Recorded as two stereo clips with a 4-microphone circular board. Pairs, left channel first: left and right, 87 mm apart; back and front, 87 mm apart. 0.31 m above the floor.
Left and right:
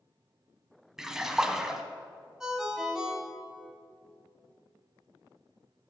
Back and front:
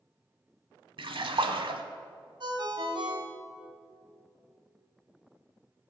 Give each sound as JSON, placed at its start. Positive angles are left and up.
{"t": 1.0, "sound": "a splash", "azimuth_deg": -5, "distance_m": 0.7}
{"t": 2.4, "sound": "a ringtone", "azimuth_deg": -10, "distance_m": 1.3}